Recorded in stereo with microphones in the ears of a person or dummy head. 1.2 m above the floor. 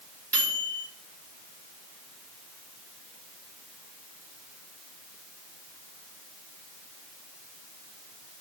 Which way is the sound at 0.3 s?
5° left (ahead or behind).